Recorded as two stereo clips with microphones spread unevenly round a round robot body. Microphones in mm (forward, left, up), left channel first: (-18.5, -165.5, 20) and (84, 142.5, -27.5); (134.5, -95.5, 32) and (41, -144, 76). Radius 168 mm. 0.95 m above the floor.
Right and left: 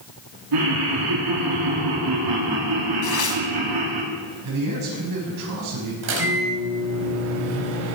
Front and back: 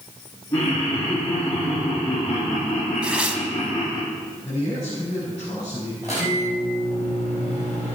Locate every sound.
0.5 s laughter: 90° left, 2.0 m
3.0 s tearing paper: 80° right, 2 m
4.4 s a man speaking: 115° left, 5.5 m
6.0 s a microwave: 130° left, 4 m